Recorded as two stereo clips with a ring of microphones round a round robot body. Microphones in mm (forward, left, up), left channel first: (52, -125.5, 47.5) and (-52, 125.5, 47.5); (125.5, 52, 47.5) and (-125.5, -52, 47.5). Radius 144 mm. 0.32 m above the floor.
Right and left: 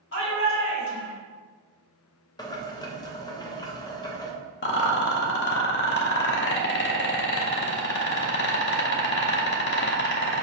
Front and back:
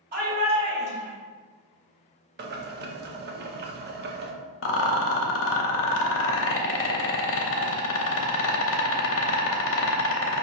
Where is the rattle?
20° right, 0.6 m.